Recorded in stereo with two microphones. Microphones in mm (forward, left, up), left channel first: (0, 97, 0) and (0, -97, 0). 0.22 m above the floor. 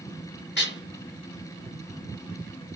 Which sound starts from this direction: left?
Dishes clattering, at 0.6 s.